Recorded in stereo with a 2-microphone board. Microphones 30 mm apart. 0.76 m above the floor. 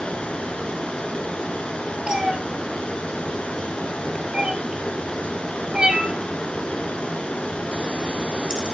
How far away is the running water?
About 4 m.